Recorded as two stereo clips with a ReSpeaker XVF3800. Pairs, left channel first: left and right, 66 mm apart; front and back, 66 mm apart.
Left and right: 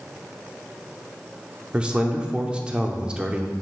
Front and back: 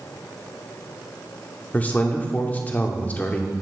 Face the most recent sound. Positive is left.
turn(degrees=-30)